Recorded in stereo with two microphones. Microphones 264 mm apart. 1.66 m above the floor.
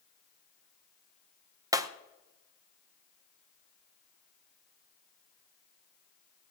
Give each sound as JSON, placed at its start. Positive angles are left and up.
{"t": 1.7, "sound": "breaking glass", "side_deg": -15, "distance_m": 0.7}